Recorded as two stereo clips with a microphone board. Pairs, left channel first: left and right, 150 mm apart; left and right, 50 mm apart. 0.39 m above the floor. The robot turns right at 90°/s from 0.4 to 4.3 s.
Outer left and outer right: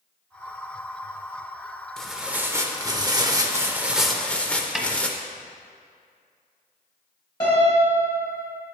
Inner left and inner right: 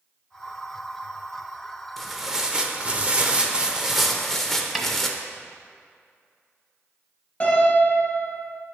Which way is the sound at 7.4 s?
30° left (ahead or behind).